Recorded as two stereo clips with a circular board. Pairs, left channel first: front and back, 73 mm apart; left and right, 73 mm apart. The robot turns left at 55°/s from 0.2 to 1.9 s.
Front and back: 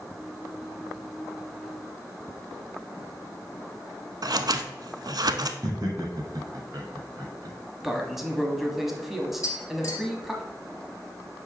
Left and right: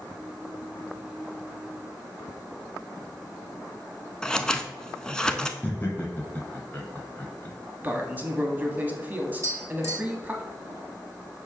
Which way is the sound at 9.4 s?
40° right.